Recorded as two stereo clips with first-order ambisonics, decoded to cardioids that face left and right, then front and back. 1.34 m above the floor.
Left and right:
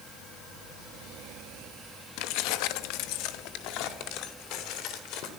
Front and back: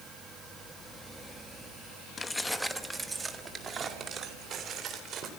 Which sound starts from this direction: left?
Keys jangling, at 2.2 s.